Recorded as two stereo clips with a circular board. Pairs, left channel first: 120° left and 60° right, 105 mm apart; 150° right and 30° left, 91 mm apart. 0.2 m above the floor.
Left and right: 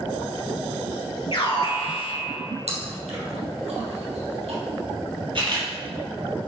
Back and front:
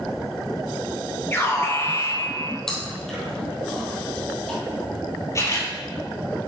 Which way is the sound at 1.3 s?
150° left.